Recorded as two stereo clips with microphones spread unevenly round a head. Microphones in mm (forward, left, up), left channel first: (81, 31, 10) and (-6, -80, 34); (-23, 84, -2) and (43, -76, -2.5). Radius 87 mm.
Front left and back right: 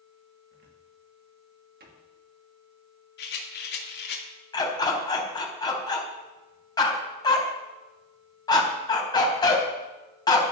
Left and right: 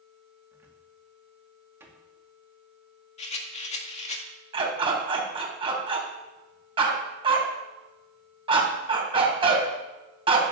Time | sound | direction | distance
0.5 | a cupboard door | 145° right | 2 m
3.2 | a rattle | 65° left | 2 m
4.5 | a dog barking | 10° right | 3.5 m